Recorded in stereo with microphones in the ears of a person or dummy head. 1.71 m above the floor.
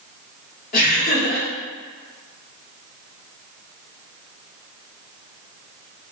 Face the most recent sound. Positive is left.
turn(degrees=50)  # may be behind; listen again after turning